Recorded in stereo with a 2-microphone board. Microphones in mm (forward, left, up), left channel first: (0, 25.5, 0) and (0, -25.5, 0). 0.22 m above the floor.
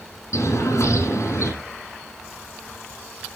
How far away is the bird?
About 8 m.